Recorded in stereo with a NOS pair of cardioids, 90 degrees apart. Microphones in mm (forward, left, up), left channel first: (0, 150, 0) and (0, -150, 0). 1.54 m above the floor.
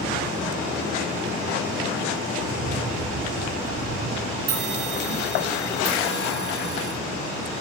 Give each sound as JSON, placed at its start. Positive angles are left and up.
{"t": 2.3, "sound": "footsteps", "azimuth_deg": -45, "distance_m": 5.0}
{"t": 4.5, "sound": "a bell", "azimuth_deg": -50, "distance_m": 4.0}